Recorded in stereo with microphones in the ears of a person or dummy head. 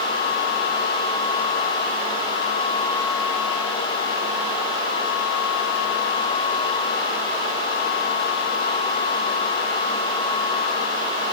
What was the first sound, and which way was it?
Only background noise.